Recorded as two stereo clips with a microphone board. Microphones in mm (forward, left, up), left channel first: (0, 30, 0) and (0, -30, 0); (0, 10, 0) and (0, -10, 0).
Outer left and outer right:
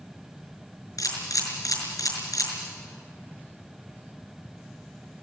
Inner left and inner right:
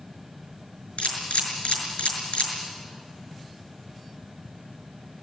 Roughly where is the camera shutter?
Left.